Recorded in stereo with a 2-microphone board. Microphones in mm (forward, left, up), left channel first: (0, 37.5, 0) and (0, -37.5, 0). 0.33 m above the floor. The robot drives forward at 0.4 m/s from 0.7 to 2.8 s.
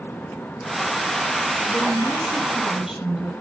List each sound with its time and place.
1.7 s a woman speaking: centre (ahead or behind), 8.5 m